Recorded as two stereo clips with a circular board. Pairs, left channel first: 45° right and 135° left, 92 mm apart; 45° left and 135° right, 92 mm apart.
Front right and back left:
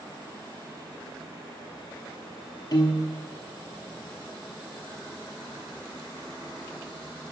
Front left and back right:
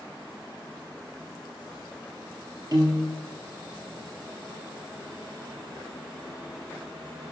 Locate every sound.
2.7 s a piano: 90° right, 1.1 m